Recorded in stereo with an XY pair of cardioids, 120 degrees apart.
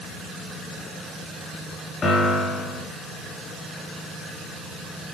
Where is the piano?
40° left, 3 m.